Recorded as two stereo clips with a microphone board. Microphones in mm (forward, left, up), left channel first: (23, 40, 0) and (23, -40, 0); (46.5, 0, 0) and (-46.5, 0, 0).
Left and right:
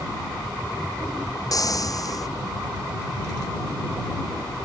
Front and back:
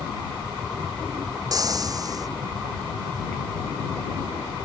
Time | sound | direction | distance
1.5 | frying | 130° left | ?